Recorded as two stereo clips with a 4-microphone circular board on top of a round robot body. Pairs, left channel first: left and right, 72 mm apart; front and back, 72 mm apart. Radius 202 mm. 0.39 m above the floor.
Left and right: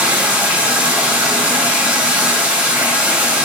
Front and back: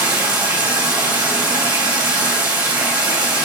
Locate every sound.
0.0 s running water: 155° right, 4 m